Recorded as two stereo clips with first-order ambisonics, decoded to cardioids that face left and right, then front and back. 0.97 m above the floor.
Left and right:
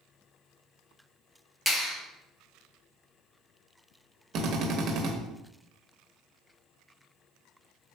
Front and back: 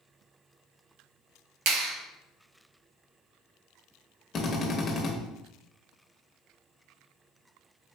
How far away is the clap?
About 0.9 m.